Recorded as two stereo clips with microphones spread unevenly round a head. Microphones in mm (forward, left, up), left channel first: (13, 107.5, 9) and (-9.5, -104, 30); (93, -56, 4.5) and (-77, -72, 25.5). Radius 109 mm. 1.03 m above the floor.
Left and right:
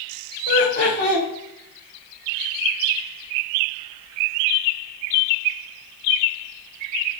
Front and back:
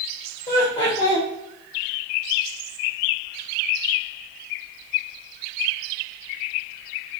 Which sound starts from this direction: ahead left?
Laughter, at 0.5 s.